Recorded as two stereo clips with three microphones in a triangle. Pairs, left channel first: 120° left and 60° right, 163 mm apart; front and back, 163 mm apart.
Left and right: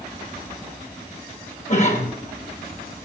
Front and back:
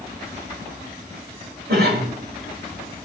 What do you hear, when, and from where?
1.7 s a cough: 165° left, 5.5 m